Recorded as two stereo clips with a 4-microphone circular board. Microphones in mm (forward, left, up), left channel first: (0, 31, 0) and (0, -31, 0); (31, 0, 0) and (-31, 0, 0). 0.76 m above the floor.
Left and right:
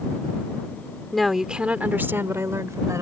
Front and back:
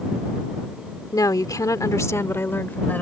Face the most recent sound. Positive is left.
turn(degrees=-60)